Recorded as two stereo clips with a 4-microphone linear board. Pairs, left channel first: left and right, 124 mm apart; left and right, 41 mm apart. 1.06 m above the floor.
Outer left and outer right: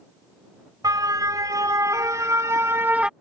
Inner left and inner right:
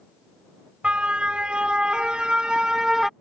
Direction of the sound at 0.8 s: 30° right (ahead or behind).